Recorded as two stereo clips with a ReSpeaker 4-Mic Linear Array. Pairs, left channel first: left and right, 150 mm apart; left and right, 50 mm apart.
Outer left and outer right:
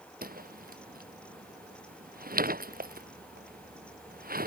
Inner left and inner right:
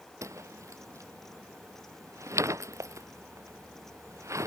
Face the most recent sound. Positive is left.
turn(degrees=-85)